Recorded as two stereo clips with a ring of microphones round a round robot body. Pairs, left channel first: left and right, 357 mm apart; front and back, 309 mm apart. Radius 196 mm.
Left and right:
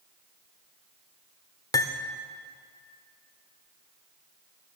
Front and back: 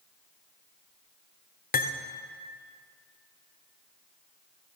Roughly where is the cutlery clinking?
Ahead.